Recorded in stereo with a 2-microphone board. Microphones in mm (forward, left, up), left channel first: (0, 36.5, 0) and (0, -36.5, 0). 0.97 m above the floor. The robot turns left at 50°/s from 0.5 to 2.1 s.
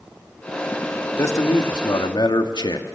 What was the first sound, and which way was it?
A man speaking, 140° left.